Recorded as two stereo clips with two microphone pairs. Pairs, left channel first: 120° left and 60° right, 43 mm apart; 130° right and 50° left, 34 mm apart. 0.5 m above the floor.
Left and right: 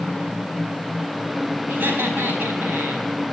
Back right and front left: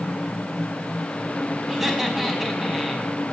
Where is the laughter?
25° right, 4.5 m.